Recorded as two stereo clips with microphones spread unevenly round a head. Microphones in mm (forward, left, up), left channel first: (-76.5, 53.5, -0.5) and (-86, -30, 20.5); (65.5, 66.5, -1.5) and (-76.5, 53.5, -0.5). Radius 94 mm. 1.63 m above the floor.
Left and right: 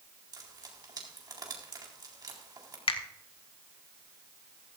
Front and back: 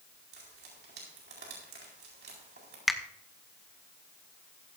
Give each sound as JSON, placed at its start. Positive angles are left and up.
{"t": 0.3, "sound": "frying", "azimuth_deg": -135, "distance_m": 4.0}
{"t": 2.9, "sound": "a finger snap", "azimuth_deg": 95, "distance_m": 1.4}